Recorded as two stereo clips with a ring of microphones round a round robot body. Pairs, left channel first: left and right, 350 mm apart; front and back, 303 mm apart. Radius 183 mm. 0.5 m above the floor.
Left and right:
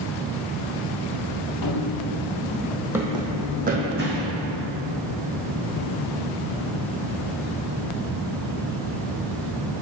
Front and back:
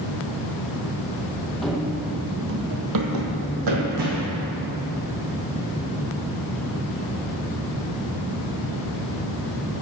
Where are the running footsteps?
85° left, 0.7 m; by 4.4 s 150° right, 1.5 m.